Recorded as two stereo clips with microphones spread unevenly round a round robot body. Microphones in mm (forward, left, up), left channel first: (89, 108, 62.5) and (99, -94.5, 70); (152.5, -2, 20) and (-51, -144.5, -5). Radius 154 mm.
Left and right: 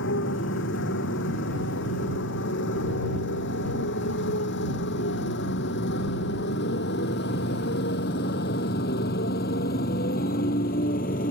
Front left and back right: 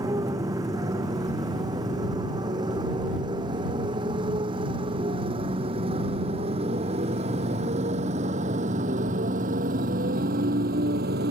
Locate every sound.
0.0 s a motorcycle: 135° left; by 11.3 s 155° left